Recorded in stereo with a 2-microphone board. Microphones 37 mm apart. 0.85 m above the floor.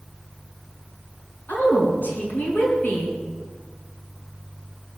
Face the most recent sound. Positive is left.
turn(degrees=60)  # may be behind; listen again after turning